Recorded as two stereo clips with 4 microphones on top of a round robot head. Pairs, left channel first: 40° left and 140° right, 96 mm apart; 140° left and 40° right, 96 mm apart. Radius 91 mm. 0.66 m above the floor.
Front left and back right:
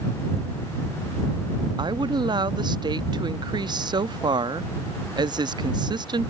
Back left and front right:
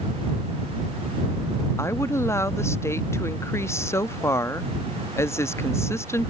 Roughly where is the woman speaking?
Behind.